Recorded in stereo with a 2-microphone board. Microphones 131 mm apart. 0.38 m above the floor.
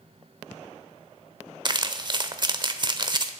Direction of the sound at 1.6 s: 35° right (ahead or behind).